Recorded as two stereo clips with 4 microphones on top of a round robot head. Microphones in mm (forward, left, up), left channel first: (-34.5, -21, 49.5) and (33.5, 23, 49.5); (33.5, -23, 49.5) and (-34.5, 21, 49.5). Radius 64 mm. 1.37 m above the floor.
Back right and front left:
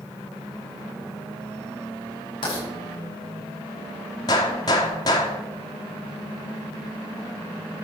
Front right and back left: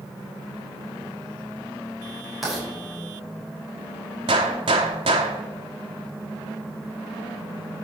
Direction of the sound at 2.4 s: 125° right.